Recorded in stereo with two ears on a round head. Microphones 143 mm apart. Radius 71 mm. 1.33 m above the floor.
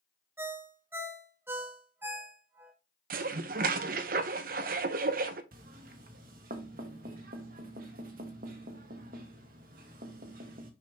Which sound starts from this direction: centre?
A ringtone, at 0.4 s.